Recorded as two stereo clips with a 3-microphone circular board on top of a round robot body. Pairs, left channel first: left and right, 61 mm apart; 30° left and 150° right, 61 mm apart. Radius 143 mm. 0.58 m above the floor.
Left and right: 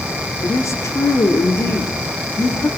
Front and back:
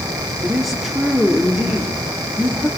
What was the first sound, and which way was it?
A woman speaking, 125° left.